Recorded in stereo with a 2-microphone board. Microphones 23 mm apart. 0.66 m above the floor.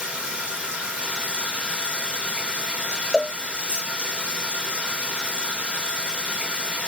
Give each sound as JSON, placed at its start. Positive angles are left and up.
{"t": 0.0, "sound": "running water", "side_deg": -60, "distance_m": 2.0}
{"t": 3.1, "sound": "a cowbell", "side_deg": 5, "distance_m": 0.8}